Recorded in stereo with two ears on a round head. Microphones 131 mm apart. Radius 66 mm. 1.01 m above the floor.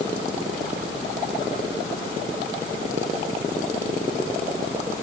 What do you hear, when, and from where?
Only background noise.